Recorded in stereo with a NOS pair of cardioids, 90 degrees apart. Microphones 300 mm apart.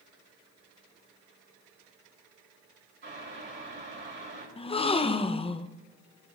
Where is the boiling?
40° right, 7.5 m.